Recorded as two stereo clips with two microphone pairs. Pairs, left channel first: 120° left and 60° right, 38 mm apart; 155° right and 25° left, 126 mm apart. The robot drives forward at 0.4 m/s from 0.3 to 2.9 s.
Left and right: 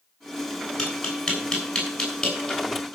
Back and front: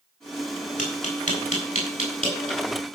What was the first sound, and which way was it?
Tapping, 160° right.